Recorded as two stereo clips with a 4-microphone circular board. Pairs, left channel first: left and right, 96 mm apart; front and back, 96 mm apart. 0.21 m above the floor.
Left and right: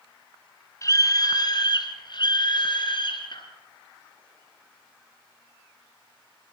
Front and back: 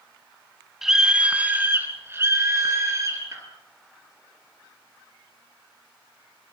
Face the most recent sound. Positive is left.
turn(degrees=125)